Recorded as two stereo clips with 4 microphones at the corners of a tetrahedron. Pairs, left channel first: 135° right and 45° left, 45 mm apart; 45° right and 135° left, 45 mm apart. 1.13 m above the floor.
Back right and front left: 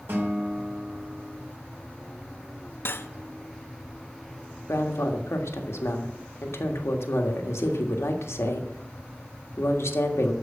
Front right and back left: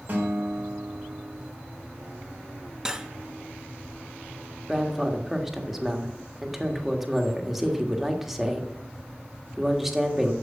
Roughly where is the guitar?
Left.